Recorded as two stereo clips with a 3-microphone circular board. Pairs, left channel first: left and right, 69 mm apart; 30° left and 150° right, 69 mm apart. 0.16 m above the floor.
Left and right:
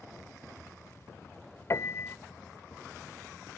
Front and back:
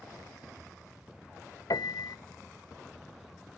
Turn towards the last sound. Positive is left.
turn(degrees=45)